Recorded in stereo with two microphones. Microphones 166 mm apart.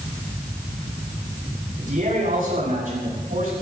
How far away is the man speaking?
About 9.5 m.